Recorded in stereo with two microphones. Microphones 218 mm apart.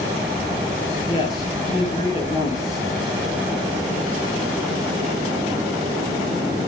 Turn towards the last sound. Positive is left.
turn(degrees=20)  # may be behind; listen again after turning